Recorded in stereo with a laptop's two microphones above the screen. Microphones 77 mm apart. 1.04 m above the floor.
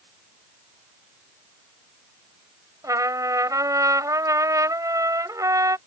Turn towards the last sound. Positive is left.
turn(degrees=-50)  # may be behind; listen again after turning